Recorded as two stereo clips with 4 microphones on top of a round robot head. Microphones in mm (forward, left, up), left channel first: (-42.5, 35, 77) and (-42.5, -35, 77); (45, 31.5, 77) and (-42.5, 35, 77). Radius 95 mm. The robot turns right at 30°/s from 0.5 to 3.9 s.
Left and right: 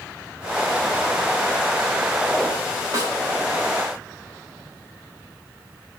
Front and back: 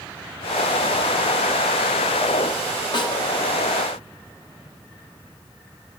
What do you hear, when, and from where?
2.9 s a snare drum: 40° right, 3.5 m; by 3.2 s 35° right, 3.5 m